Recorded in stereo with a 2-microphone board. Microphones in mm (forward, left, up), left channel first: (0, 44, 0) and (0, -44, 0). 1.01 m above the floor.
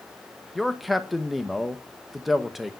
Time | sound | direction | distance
0.6 | a man speaking | centre (ahead or behind) | 1.1 m